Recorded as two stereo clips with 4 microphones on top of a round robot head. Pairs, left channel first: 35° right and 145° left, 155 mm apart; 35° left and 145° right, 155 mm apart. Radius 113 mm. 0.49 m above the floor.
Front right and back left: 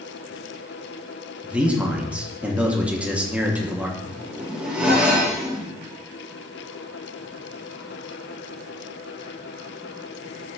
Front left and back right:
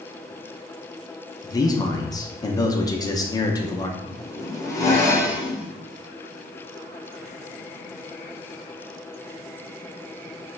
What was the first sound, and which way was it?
A man speaking, 70° left.